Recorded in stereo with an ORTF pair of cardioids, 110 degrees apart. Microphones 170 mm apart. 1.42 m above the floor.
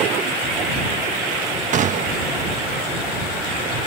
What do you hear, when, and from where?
1.7 s a gunshot: 45° right